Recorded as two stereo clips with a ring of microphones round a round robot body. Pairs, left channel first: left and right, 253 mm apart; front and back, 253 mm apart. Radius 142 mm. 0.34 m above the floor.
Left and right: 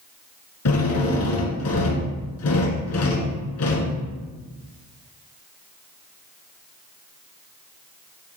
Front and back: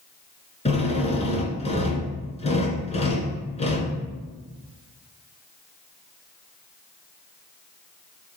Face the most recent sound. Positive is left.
turn(degrees=65)